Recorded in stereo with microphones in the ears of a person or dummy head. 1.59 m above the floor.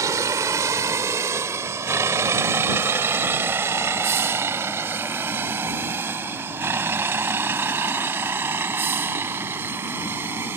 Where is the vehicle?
15° right (ahead or behind); by 10.6 s 10° right (ahead or behind).